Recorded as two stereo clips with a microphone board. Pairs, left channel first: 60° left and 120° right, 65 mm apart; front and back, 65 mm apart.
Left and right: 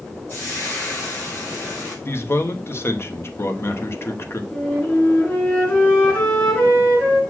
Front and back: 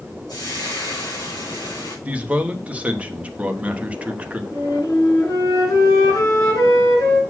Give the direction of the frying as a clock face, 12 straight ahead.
12 o'clock.